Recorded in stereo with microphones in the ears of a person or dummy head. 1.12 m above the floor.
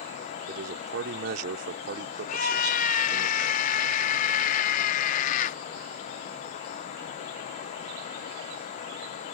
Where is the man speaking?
65° right (ahead or behind).